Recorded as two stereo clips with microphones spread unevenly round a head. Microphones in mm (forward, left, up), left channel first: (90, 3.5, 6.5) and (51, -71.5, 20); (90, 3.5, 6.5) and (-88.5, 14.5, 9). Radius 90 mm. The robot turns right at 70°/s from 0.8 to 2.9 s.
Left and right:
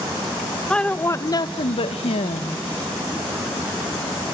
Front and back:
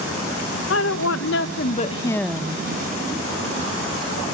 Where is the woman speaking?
20° right, 1.1 m; by 2.6 s 110° left, 1.1 m.